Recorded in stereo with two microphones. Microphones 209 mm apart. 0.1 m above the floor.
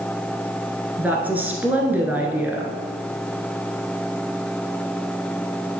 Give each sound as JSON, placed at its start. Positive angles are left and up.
{"t": 1.0, "sound": "a woman speaking", "side_deg": -10, "distance_m": 1.2}